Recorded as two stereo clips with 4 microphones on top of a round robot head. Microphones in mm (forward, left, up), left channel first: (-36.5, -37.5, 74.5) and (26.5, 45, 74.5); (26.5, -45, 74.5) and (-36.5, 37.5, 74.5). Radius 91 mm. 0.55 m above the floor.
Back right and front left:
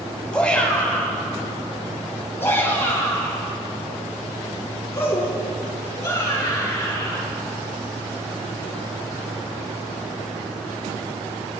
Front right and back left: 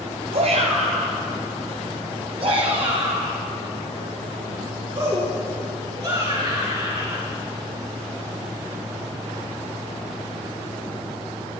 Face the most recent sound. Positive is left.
turn(degrees=170)